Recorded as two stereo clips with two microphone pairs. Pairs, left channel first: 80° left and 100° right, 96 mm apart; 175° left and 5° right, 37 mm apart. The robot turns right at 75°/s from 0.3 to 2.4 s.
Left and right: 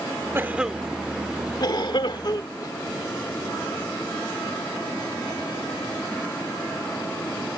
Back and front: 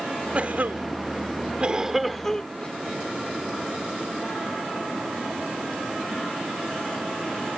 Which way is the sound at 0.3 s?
40° right.